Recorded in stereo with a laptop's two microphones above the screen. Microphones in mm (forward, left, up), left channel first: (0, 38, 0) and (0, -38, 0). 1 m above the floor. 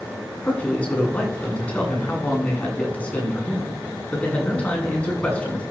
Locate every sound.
0.4 s a man speaking: 20° left (ahead or behind), 9 m